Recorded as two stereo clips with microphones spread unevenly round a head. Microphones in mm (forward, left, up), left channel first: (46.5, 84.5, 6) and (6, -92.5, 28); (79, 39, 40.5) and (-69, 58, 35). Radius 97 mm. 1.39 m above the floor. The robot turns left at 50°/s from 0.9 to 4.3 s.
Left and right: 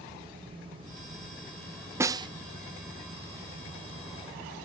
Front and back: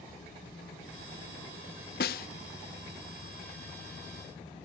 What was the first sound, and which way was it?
A snare drum, 35° right.